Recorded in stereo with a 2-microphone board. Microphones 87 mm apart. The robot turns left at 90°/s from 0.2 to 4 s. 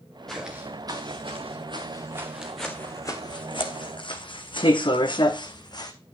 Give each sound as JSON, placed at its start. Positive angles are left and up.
{"t": 0.3, "sound": "footsteps", "side_deg": 5, "distance_m": 3.0}